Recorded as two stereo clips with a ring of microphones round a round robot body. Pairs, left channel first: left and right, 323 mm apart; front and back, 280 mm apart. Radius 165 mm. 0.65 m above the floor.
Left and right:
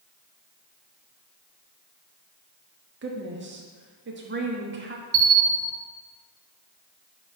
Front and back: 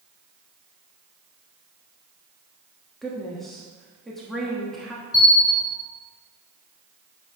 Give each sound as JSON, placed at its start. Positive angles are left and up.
{"t": 3.0, "sound": "a woman speaking", "azimuth_deg": -90, "distance_m": 1.2}
{"t": 5.1, "sound": "a bell", "azimuth_deg": -80, "distance_m": 2.0}